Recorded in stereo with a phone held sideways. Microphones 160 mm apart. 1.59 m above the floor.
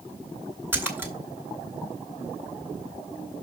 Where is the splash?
15° right (ahead or behind), 2.0 m.